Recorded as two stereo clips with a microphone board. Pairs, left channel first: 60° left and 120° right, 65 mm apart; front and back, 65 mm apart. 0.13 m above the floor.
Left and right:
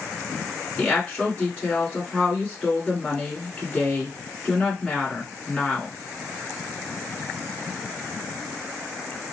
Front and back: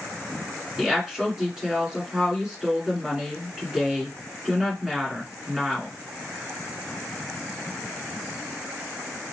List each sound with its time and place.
0.8 s a woman speaking: 110° left, 1.9 m